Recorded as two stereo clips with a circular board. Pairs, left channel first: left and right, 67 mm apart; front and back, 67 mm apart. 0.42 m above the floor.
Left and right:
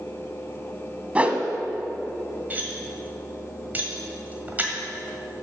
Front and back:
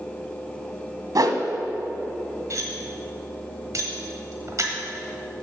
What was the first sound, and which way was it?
A whoosh, 160° right.